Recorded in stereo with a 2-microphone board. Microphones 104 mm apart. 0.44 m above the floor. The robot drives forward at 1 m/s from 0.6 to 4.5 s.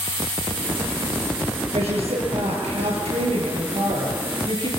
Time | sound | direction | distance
1.7 | a woman speaking | 80° right | 7 m